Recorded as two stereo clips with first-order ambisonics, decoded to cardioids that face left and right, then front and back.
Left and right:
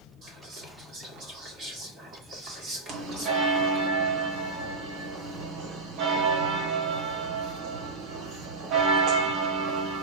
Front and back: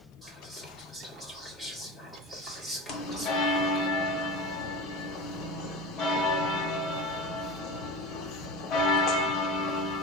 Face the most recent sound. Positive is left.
turn(degrees=-45)